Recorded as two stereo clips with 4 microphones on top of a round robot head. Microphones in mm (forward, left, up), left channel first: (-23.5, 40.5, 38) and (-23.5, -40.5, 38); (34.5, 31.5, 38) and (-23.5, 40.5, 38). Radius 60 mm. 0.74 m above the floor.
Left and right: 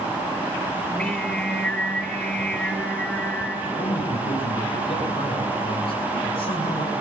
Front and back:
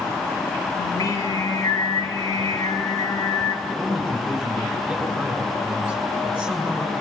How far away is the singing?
About 4.5 m.